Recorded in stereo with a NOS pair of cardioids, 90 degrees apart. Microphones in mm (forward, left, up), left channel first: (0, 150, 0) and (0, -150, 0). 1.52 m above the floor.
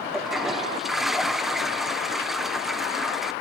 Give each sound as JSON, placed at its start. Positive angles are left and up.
{"t": 0.1, "sound": "a toilet flushing", "azimuth_deg": 0, "distance_m": 1.1}